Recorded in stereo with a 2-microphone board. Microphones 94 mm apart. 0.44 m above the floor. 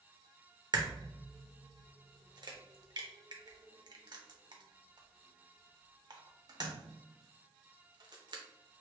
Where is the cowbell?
I don't hear a cowbell.